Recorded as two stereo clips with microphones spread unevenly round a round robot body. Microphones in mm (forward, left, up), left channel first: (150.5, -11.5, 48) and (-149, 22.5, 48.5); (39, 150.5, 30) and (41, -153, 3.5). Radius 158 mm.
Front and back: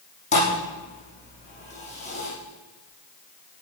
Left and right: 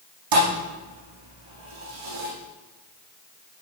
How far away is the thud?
About 8.5 m.